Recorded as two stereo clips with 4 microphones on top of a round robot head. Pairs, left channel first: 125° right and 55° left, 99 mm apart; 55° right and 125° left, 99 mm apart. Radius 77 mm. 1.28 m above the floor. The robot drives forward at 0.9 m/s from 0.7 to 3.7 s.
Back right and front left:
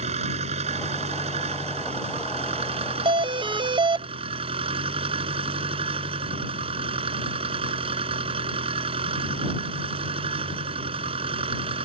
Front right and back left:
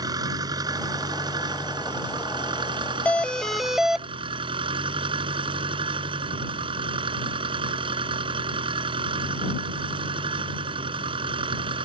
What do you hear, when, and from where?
0.0 s an engine running: 75° left; by 11.8 s 85° left
3.0 s a doorbell: 20° left; by 4.1 s 40° left